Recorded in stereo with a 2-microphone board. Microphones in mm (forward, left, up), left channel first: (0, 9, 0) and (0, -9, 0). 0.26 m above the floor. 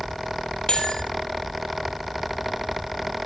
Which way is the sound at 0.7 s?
50° left (ahead or behind).